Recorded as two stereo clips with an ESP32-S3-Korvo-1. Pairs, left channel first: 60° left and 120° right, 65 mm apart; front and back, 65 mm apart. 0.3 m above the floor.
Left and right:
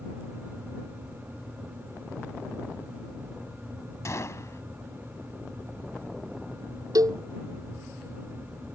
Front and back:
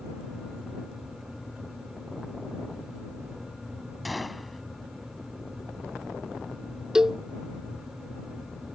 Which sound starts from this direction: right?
A cowbell, at 7.0 s.